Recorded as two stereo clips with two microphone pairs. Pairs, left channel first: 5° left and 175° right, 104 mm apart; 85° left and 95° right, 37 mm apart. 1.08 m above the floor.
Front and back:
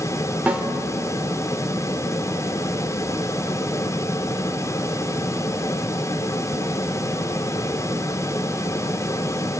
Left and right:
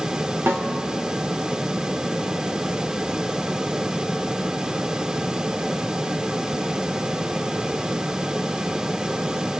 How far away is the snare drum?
About 2.5 m.